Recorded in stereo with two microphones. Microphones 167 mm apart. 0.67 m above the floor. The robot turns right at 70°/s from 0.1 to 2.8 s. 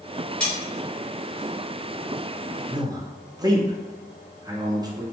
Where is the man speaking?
25° right (ahead or behind), 0.5 m.